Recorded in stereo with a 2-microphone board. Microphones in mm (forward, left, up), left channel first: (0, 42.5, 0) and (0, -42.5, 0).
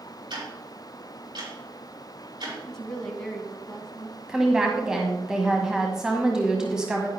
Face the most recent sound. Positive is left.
turn(degrees=-10)  # may be behind; listen again after turning